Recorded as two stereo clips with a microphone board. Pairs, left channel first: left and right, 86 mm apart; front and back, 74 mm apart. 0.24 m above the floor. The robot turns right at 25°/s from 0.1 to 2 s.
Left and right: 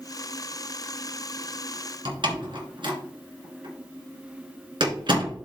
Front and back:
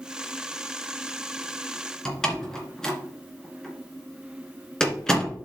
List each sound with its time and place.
2.0 s a door slam: 80° right, 2.0 m